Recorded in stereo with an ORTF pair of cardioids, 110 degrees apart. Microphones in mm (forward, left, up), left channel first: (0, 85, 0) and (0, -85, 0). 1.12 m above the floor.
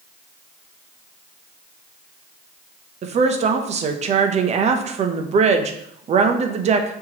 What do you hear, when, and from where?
3.0 s a woman speaking: 40° right, 0.7 m